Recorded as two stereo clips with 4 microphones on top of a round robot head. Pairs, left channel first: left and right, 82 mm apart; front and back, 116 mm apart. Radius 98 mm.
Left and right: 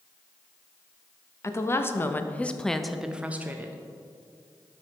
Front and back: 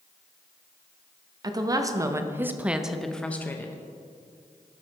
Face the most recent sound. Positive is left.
turn(degrees=-50)